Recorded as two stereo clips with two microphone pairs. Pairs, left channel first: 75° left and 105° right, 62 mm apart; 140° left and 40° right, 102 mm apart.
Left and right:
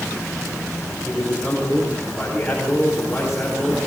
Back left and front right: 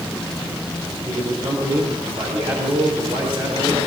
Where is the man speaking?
10° right, 4.5 m.